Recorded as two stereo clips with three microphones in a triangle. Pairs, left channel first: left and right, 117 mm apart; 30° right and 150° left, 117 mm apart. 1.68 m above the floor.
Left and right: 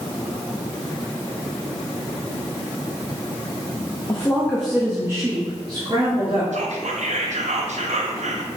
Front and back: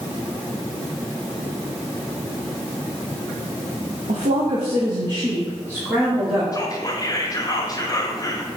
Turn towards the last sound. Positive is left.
turn(degrees=-90)